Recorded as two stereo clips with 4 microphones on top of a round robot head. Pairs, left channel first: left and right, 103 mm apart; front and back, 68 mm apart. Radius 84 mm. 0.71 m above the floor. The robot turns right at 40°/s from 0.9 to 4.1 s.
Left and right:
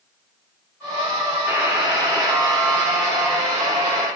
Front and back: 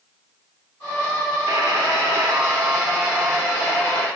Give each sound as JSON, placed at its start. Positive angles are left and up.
{"t": 1.5, "sound": "a buzzer", "azimuth_deg": -165, "distance_m": 5.5}